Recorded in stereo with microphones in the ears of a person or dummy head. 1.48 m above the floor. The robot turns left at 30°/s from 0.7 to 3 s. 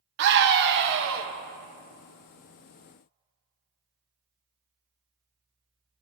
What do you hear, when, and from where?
0.2 s a scream: 65° right (ahead or behind), 1.1 m; by 1.3 s 75° right (ahead or behind), 1.1 m